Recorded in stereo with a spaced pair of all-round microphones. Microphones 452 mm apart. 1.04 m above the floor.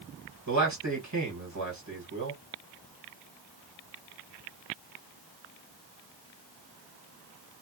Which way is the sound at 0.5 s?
40° right (ahead or behind).